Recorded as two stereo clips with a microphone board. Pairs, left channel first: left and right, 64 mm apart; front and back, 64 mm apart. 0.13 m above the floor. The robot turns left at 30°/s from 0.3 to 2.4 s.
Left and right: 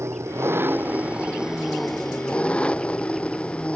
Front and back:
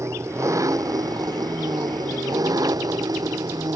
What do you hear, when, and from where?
0.0 s an engine running: 135° right; by 3.8 s 160° left